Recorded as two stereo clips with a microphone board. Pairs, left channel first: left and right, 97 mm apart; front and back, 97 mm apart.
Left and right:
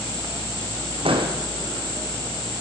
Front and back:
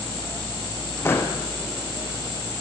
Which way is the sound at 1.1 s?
65° right.